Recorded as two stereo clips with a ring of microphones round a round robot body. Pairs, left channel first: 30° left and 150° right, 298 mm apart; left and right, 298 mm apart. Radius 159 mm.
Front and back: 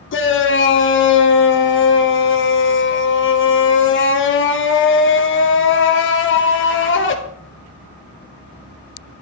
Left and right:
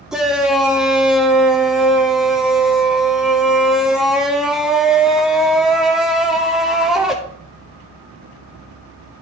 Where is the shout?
Straight ahead, 0.9 m.